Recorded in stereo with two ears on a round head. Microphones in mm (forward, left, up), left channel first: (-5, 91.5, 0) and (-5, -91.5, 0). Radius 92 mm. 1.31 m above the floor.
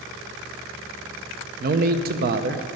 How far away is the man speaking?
About 0.8 m.